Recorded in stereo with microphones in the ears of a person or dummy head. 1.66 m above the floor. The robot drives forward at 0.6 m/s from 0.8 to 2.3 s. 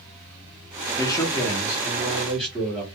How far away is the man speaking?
About 0.6 m.